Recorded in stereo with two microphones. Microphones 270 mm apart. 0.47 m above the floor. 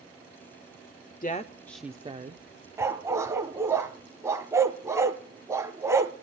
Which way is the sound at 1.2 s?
35° left (ahead or behind).